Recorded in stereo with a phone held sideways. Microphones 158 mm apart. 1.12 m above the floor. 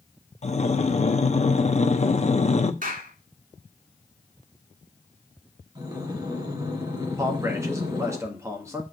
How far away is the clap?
About 2 m.